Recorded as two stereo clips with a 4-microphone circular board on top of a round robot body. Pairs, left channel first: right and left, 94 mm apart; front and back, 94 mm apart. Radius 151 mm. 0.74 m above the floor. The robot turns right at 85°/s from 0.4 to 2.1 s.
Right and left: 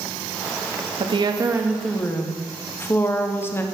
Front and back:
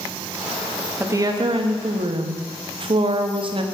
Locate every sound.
1.0 s a woman speaking: 110° left, 1.1 m; by 3.6 s 155° right, 1.1 m